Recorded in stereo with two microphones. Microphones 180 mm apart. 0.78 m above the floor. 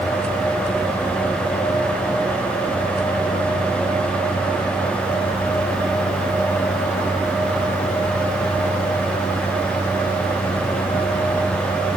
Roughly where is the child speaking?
No child speaking in this recording.